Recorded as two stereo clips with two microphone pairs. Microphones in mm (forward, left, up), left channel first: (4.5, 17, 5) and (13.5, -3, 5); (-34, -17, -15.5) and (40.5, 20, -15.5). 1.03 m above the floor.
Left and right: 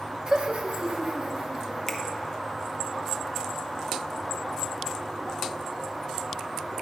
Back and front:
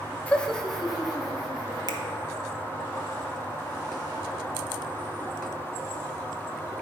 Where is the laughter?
95° right, 0.6 m; by 1.9 s 60° right, 2.5 m.